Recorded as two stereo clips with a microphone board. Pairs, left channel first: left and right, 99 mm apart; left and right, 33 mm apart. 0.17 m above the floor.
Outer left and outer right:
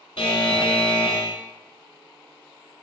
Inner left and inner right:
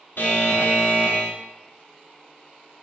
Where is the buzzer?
70° left (ahead or behind), 0.5 m.